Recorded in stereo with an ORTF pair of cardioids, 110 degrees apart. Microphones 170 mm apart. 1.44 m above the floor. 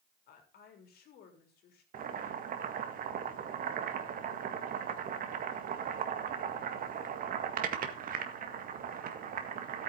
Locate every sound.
0.3 s a woman speaking: 65° left, 4 m
1.9 s boiling: 55° right, 1.7 m